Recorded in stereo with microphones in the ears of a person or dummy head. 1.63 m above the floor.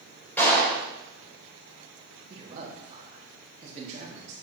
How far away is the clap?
About 5 m.